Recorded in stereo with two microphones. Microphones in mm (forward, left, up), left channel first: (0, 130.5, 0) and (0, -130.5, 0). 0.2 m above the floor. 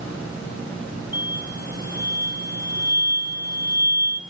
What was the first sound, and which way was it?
An explosion, 35° right (ahead or behind).